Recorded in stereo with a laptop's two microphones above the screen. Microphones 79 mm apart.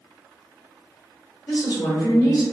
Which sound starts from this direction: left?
A woman speaking, at 1.5 s.